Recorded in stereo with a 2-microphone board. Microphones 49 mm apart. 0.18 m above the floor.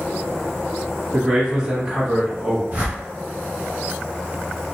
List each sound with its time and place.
1.1 s a man speaking: 15° right (ahead or behind), 1.0 m
2.7 s a whoosh: 45° right (ahead or behind), 1.7 m